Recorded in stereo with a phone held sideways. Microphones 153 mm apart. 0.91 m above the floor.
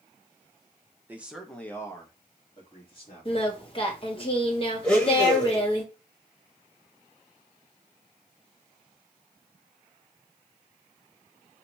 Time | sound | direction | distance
1.1 | a man speaking | 15° right (ahead or behind) | 0.6 m
3.2 | singing | 35° left (ahead or behind) | 0.9 m
4.8 | a blender | 5° left (ahead or behind) | 1.2 m